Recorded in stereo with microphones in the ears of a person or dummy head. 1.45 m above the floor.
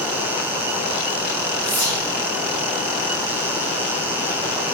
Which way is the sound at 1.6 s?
40° left (ahead or behind).